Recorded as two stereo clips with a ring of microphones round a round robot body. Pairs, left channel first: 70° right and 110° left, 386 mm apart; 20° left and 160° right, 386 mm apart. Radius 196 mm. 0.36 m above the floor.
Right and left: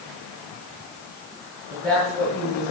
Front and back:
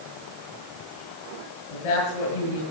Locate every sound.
1.7 s a woman speaking: 20° left, 8 m